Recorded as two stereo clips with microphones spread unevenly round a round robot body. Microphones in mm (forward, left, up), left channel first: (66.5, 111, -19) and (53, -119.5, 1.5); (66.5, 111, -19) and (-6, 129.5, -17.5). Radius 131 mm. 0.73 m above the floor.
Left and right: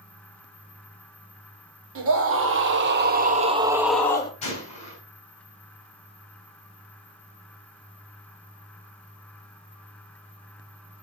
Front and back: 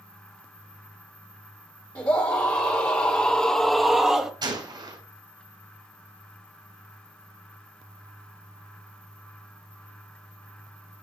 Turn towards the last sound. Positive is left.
turn(degrees=155)